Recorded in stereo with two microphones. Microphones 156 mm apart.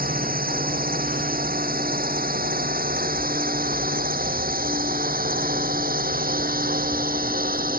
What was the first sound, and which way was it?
A drone, 70° right (ahead or behind).